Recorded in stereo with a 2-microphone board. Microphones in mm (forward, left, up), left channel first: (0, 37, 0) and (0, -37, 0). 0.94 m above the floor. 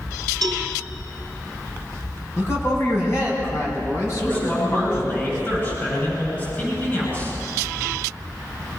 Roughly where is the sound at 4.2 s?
Left.